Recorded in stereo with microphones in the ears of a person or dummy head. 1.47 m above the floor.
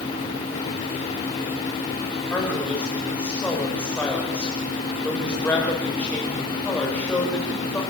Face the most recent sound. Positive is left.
turn(degrees=10)  # may be behind; listen again after turning